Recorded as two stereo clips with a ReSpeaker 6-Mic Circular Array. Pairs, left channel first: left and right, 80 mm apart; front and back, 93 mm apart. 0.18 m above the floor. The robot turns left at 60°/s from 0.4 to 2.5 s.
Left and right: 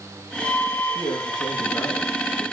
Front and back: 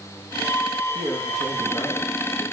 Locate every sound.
0.9 s a man speaking: 110° left, 5.5 m; by 2.5 s 15° left, 5.5 m